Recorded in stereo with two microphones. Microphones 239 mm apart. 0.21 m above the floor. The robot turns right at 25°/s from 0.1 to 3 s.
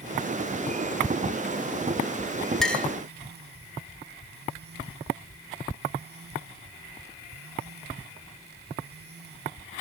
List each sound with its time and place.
2.6 s a clink: centre (ahead or behind), 0.7 m; by 2.9 s 5° left (ahead or behind), 0.7 m